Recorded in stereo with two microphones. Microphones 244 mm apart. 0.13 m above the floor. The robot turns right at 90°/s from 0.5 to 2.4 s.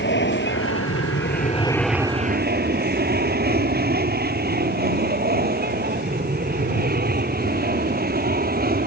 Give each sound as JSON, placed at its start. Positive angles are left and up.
{"t": 0.0, "sound": "an aircraft", "side_deg": 50}